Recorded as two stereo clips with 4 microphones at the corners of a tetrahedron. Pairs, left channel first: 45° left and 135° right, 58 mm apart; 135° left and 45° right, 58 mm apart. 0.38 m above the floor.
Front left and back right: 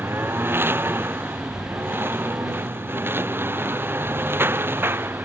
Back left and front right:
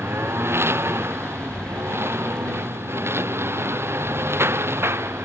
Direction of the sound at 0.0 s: 90° right.